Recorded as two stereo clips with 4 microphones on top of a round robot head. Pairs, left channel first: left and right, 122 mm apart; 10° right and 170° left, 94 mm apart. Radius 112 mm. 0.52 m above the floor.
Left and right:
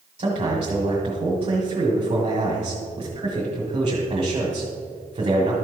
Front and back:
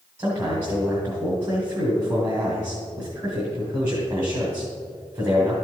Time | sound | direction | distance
0.2 | a man speaking | 130° right | 1.8 m